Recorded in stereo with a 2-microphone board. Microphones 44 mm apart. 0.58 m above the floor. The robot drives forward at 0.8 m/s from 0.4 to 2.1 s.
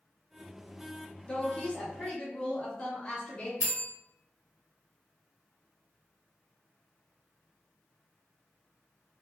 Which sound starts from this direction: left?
A woman speaking, at 1.3 s.